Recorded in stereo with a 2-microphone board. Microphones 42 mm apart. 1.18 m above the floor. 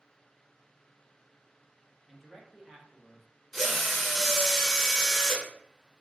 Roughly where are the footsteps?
I don't hear footsteps.